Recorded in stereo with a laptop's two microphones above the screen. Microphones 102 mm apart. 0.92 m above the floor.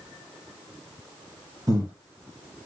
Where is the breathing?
35° right (ahead or behind), 5.5 m.